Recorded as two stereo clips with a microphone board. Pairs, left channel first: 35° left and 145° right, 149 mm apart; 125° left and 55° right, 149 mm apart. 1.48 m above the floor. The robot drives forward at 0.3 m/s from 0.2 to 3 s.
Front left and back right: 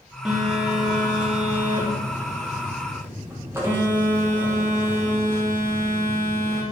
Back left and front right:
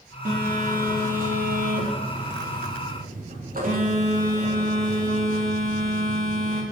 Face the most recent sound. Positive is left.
turn(degrees=-75)